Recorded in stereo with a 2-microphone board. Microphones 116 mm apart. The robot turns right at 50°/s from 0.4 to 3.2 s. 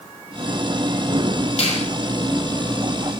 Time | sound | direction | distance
1.6 | a finger snap | 70° left (ahead or behind) | 7 m